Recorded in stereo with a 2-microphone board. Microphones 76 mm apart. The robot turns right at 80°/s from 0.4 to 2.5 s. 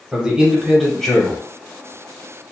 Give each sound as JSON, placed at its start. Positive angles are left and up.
{"t": 0.1, "sound": "a man speaking", "side_deg": -10, "distance_m": 0.9}